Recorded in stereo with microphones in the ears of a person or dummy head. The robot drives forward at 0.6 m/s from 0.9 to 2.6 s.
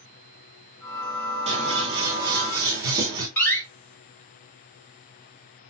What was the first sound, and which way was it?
Scissors, 30° right (ahead or behind).